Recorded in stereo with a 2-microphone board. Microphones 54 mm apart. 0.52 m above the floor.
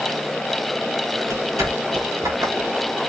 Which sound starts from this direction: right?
Footsteps, at 1.2 s.